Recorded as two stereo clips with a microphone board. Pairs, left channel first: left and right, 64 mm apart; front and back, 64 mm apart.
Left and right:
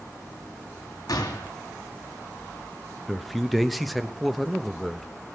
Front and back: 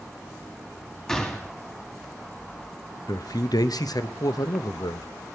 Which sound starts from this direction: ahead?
A man speaking, at 3.1 s.